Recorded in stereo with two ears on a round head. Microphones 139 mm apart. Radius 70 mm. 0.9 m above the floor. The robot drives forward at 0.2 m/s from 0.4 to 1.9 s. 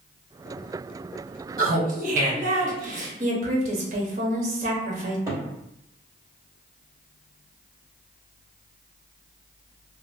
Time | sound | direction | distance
1.6 | laughter | 55° right (ahead or behind) | 1.0 m
3.2 | a woman speaking | 50° right (ahead or behind) | 1.0 m
5.3 | a cupboard door | 20° right (ahead or behind) | 1.7 m